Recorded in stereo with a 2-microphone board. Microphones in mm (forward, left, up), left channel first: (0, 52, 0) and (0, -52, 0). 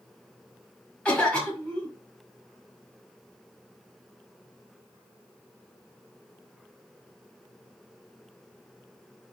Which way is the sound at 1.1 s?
10° left (ahead or behind).